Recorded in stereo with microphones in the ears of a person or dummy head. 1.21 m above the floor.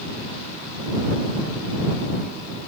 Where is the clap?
I don't hear a clap.